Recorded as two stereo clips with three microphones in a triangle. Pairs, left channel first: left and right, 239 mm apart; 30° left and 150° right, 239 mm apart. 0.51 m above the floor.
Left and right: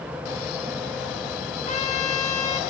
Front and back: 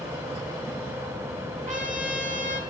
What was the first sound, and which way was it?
A trumpet, 155° left.